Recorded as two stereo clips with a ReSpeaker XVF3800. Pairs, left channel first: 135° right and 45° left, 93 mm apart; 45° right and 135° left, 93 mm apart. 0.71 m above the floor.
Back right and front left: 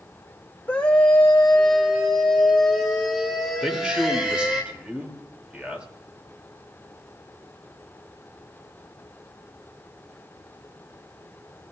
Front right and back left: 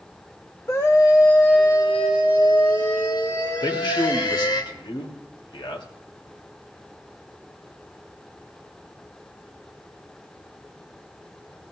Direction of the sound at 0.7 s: 75° right.